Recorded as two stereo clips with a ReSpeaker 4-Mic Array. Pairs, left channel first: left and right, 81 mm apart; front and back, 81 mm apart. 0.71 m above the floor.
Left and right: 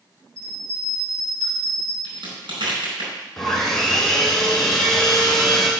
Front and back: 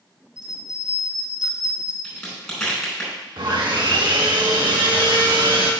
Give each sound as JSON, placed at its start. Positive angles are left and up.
{"t": 0.4, "sound": "a bell", "azimuth_deg": 160, "distance_m": 3.0}
{"t": 2.0, "sound": "a crack", "azimuth_deg": -85, "distance_m": 4.5}
{"t": 3.4, "sound": "sawing", "azimuth_deg": 175, "distance_m": 1.7}